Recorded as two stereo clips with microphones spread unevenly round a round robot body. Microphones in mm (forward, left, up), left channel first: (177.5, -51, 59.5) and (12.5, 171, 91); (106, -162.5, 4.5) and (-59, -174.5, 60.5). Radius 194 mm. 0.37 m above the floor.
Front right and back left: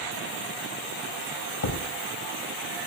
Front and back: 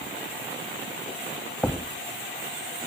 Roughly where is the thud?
Right.